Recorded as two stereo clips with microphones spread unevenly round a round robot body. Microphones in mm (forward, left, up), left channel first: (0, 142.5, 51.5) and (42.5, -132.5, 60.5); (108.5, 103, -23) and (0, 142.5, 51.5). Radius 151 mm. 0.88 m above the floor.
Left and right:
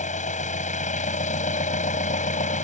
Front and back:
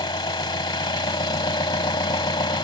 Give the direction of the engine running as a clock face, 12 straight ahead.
11 o'clock.